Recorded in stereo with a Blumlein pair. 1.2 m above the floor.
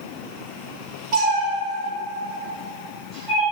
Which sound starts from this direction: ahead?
A cat meowing, at 1.1 s.